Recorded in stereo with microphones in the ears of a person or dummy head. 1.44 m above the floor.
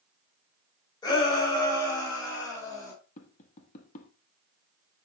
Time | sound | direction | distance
1.0 | a shout | 20° left (ahead or behind) | 4 m
3.2 | tapping | 40° left (ahead or behind) | 1.2 m